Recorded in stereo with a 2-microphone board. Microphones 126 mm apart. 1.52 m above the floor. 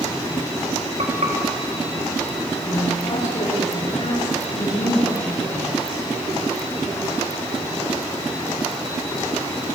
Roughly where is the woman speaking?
Left.